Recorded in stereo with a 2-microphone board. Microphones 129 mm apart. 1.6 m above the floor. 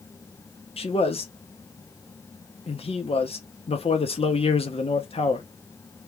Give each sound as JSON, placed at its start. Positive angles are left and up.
{"t": 0.8, "sound": "a man speaking", "side_deg": 50, "distance_m": 1.0}